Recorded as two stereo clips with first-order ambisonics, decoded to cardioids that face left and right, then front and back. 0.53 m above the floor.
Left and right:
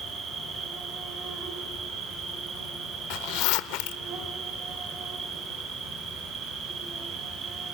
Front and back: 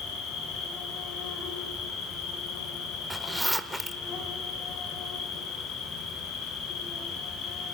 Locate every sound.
0.0 s an insect: 35° right, 3.5 m
3.1 s a zipper: 90° left, 0.7 m